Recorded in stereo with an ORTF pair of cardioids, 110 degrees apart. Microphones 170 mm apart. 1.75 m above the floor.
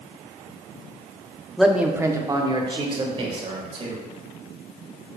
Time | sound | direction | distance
1.6 | a man speaking | straight ahead | 0.8 m